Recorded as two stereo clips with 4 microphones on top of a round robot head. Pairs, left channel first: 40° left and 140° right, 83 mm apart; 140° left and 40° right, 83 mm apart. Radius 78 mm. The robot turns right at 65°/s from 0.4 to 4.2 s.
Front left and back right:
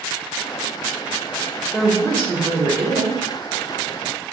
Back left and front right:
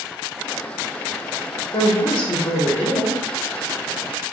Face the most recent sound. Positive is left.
turn(degrees=-70)